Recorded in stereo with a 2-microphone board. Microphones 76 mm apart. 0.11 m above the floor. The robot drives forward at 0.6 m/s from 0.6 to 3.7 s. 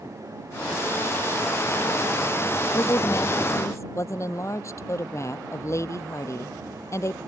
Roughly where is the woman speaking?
Left.